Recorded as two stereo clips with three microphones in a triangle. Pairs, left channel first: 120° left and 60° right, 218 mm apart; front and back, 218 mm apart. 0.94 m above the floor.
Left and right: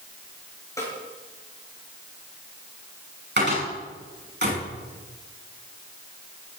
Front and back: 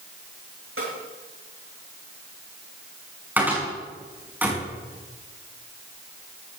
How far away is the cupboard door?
About 6 m.